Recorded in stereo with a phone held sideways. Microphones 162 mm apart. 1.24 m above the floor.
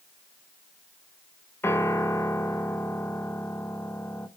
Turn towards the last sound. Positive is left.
turn(degrees=15)  # may be behind; listen again after turning